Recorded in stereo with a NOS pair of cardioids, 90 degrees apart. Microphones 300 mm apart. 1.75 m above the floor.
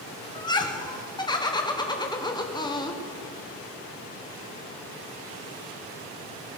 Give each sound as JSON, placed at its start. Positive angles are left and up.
{"t": 0.3, "sound": "laughter", "azimuth_deg": 15, "distance_m": 1.3}